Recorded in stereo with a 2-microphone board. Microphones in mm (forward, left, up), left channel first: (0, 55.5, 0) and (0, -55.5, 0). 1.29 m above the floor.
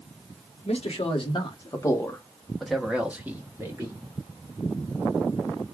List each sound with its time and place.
0.7 s a man speaking: 70° left (ahead or behind), 1.2 m; by 4.0 s 25° right (ahead or behind), 1.7 m